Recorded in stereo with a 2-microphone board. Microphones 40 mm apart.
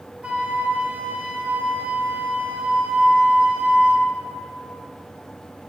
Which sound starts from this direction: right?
A flute, at 0.2 s.